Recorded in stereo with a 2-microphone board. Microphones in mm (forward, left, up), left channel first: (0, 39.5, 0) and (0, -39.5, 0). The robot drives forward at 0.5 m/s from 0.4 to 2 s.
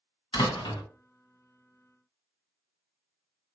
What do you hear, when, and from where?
0.3 s a door slam: 80° left, 1.7 m